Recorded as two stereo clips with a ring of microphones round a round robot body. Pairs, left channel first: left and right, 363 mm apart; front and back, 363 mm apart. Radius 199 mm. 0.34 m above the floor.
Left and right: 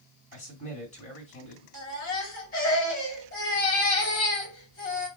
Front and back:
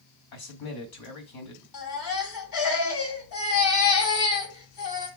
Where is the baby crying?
25° left, 2.5 m.